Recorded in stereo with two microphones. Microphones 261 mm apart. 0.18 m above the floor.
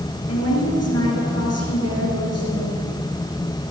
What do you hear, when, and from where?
0.3 s a woman speaking: 65° left (ahead or behind), 3.5 m